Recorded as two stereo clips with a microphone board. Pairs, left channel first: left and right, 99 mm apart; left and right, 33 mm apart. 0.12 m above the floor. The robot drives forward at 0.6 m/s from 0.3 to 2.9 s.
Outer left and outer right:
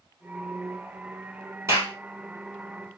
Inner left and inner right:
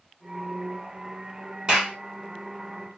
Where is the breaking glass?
No breaking glass in this recording.